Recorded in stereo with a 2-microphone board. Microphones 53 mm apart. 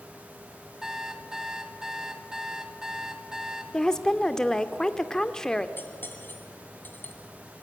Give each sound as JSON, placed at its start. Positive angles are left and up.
{"t": 0.8, "sound": "an alarm clock", "side_deg": -10, "distance_m": 1.7}
{"t": 3.7, "sound": "a woman speaking", "side_deg": 10, "distance_m": 1.0}
{"t": 5.8, "sound": "cutlery clinking", "side_deg": 40, "distance_m": 2.0}